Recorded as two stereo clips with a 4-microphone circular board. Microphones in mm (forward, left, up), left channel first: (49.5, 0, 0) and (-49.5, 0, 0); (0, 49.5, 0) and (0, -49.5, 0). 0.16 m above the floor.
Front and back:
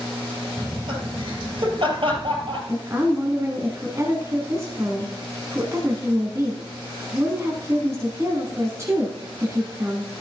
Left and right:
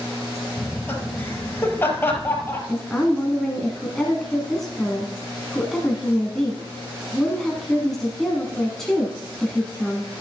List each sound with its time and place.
0.6 s laughter: 155° left, 3.5 m
2.7 s a woman speaking: 170° left, 1.4 m